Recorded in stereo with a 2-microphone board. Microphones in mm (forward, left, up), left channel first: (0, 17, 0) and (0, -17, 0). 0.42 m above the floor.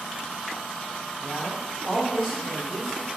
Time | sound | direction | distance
1.2 | a man speaking | 25° right (ahead or behind) | 1.7 m